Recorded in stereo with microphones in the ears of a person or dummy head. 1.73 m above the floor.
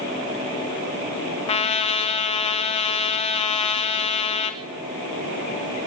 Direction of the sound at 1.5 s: 30° left (ahead or behind).